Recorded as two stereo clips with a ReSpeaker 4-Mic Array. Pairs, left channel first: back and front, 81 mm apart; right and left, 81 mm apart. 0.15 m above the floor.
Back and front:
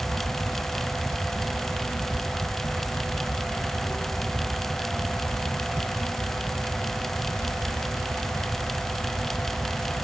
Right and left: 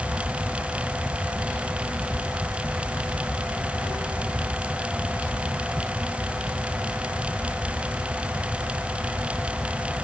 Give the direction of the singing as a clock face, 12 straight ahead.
I don't hear singing.